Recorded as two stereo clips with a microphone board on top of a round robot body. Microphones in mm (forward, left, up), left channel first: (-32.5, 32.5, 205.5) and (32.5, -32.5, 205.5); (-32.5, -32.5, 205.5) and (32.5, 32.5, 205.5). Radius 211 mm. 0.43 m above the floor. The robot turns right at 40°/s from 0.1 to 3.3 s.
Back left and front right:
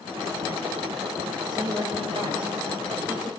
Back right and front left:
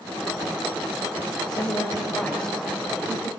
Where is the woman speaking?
90° right, 3.5 m; by 3.3 s 20° right, 3.5 m.